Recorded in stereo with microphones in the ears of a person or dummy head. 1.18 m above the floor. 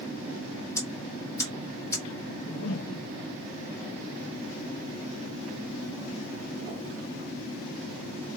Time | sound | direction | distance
0.8 | ticking | 15° left (ahead or behind) | 1.9 m
2.3 | a whoosh | 60° left (ahead or behind) | 0.9 m